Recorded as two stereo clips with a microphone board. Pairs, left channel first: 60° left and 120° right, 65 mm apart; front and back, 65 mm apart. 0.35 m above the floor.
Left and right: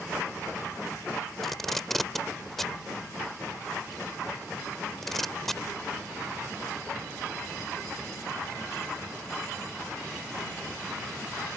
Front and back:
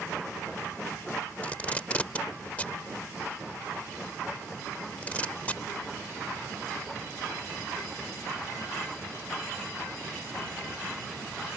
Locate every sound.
1.4 s tape being pulled: 20° right